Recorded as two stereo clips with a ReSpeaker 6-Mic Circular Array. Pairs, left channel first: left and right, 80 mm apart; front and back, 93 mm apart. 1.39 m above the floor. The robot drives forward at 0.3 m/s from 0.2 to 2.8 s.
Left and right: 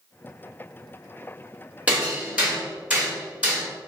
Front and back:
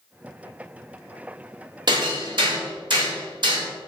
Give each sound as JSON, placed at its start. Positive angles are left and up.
{"t": 1.9, "sound": "hammering", "azimuth_deg": -160, "distance_m": 1.6}